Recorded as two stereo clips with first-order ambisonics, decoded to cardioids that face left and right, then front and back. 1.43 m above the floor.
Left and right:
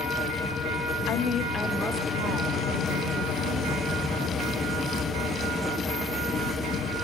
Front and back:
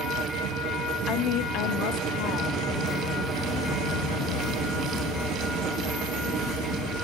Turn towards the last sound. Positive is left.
turn(degrees=-60)